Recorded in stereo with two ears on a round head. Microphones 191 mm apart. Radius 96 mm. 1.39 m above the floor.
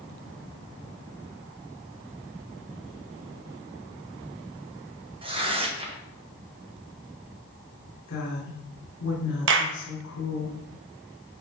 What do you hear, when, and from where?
5.2 s tearing paper: 25° right (ahead or behind), 1.5 m
8.1 s a woman speaking: 65° left (ahead or behind), 4 m
9.5 s a clap: 65° right (ahead or behind), 1.0 m